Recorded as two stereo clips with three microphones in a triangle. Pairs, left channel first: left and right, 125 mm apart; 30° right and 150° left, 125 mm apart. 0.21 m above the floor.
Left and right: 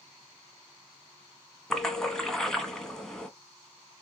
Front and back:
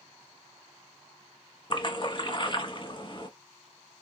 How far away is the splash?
About 0.9 m.